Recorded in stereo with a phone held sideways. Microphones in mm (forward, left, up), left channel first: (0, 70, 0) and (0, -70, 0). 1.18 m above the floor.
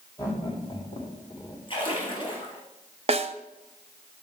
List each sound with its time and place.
0.2 s laughter: 30° left (ahead or behind), 3 m; by 1.6 s 40° left (ahead or behind), 4 m
1.7 s a splash: 40° left (ahead or behind), 4 m
3.1 s a snare drum: 45° right (ahead or behind), 0.6 m